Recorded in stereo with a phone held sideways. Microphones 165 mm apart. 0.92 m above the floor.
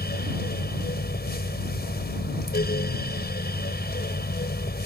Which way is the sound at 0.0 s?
75° left (ahead or behind).